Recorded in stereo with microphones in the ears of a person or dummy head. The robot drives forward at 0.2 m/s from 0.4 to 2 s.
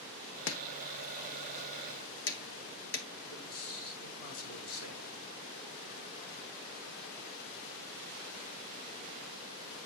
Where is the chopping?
70° left (ahead or behind), 1.2 m; by 3.1 s 60° left (ahead or behind), 1.3 m.